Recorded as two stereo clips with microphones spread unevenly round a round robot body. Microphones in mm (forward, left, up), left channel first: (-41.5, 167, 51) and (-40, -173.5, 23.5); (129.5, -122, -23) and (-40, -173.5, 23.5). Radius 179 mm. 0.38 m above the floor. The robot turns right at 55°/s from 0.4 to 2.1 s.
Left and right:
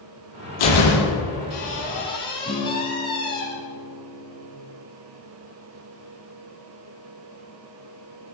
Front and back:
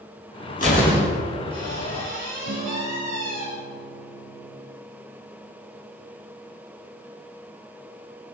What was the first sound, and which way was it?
A door slam, 85° left.